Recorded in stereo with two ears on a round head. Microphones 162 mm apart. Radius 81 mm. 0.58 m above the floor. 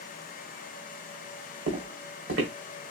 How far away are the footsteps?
About 2.5 m.